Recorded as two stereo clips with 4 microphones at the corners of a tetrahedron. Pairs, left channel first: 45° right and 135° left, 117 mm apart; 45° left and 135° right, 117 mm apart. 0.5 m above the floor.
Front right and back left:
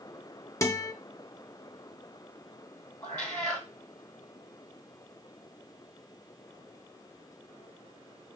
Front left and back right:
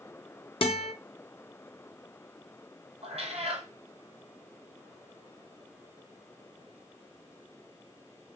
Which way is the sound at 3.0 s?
125° right.